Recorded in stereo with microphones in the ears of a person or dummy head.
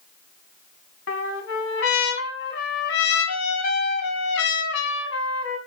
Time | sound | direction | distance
1.1 | a trumpet | 70° left (ahead or behind) | 1.9 m